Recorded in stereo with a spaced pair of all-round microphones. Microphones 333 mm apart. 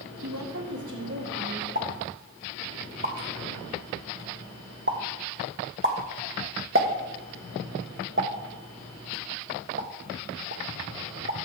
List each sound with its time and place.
0.2 s a woman speaking: 50° right (ahead or behind), 1.3 m; by 1.6 s 60° right (ahead or behind), 3 m
1.8 s a pop: 35° right (ahead or behind), 1.1 m